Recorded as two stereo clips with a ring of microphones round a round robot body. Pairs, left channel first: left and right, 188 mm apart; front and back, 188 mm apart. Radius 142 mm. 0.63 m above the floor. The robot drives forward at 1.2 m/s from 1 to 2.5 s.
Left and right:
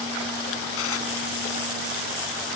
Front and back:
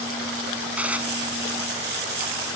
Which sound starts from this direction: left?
Dishes clattering, at 0.8 s.